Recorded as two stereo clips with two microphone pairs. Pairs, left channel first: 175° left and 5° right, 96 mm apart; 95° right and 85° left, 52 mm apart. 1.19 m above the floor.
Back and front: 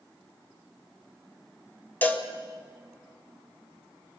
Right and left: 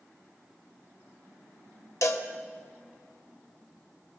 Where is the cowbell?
115° right, 1.7 m.